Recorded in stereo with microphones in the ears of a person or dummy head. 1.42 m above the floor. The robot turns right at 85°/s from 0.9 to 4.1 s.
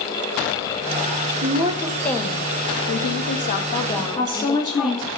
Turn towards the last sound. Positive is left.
turn(degrees=25)  # may be behind; listen again after turning